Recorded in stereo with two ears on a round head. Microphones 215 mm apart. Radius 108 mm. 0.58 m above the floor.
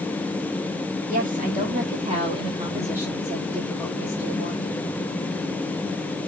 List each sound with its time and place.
1.1 s a woman speaking: 35° right (ahead or behind), 1.4 m; by 4.7 s 15° left (ahead or behind), 1.6 m